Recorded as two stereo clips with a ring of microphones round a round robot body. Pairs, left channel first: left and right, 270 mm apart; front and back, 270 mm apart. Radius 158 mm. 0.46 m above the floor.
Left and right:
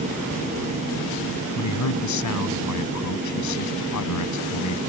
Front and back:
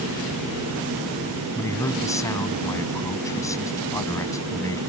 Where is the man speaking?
80° left.